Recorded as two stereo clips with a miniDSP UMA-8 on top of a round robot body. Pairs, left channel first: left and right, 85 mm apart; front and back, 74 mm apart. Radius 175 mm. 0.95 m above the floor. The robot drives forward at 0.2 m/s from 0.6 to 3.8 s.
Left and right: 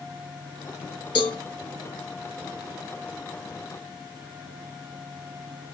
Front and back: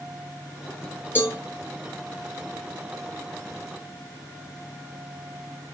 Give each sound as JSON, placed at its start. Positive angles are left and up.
{"t": 1.1, "sound": "a cowbell", "azimuth_deg": 60, "distance_m": 0.7}